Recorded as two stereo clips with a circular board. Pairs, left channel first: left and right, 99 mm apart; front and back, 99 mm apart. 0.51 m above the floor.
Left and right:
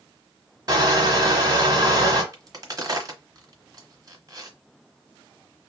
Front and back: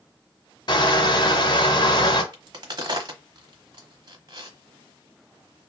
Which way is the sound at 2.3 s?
140° right.